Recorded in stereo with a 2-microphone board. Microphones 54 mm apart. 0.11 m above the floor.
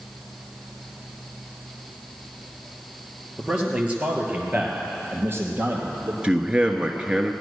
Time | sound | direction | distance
3.4 | a man speaking | 15° right (ahead or behind) | 2.5 m
6.2 | a man speaking | 20° right (ahead or behind) | 1.2 m